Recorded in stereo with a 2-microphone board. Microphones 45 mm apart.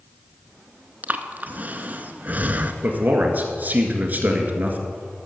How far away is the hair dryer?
No hair dryer in this recording.